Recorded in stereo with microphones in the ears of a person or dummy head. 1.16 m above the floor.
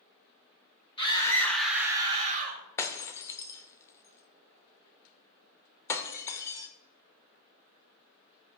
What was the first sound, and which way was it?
A scream, 25° left (ahead or behind).